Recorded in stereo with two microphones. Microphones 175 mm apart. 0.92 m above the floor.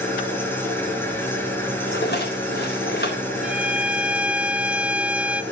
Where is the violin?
5° right (ahead or behind), 0.7 m.